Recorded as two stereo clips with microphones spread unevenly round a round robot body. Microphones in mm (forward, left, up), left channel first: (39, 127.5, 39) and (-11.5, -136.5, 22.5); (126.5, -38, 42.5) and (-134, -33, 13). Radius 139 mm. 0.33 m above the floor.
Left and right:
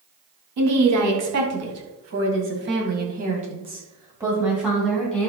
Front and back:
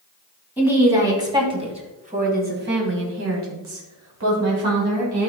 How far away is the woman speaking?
About 3.5 m.